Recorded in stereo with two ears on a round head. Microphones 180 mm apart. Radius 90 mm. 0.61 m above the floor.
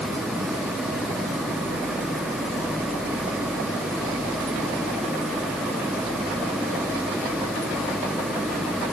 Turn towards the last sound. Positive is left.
No sound to turn to.